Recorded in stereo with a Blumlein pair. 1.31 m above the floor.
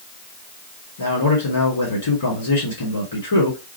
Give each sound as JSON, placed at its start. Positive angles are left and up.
{"t": 1.0, "sound": "a man speaking", "azimuth_deg": 70, "distance_m": 3.5}